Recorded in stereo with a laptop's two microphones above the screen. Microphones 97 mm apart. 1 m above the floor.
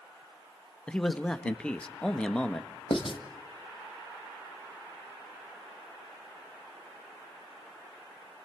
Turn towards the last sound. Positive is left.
turn(degrees=60)  # may be behind; listen again after turning